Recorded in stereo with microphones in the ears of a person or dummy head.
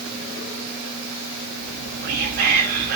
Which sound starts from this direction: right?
Whispering, at 1.6 s.